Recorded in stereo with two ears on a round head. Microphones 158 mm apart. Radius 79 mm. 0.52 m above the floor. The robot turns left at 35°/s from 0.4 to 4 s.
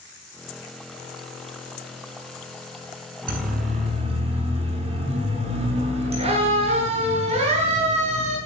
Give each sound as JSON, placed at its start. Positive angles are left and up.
{"t": 3.3, "sound": "a siren", "side_deg": -55, "distance_m": 9.5}